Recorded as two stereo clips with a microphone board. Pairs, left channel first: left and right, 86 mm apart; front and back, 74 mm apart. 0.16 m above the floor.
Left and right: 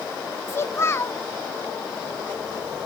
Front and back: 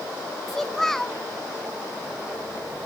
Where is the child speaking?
80° left, 0.7 m.